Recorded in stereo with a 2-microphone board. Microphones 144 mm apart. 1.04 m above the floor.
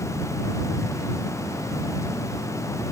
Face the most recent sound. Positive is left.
No sound to turn to.